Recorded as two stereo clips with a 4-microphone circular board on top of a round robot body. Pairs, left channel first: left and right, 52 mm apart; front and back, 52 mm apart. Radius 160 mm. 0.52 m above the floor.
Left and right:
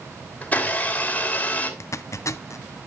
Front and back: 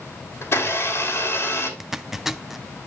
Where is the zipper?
100° left, 0.7 m.